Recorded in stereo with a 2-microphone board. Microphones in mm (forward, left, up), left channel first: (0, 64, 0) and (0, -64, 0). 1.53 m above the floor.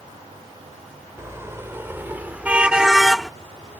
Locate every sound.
1.2 s a car horn: 20° right (ahead or behind); by 3.3 s 5° left (ahead or behind)